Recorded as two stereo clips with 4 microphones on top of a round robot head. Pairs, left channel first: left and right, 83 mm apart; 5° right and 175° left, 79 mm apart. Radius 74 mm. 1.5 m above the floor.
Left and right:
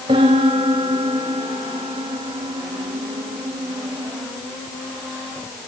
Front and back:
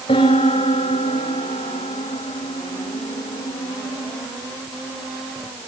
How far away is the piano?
About 5 m.